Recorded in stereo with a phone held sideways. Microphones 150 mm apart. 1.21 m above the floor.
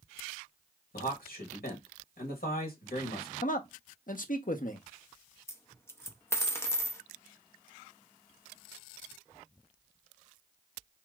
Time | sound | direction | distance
0.9 | a man speaking | 85° left | 1.5 m
3.4 | a man speaking | 65° left (ahead or behind) | 0.8 m
5.5 | a dropped coin | 15° left (ahead or behind) | 0.6 m